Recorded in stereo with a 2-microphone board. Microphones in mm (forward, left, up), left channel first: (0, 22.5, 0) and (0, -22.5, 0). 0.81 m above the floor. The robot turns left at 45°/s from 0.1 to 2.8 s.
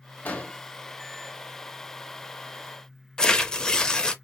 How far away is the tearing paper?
About 0.6 m.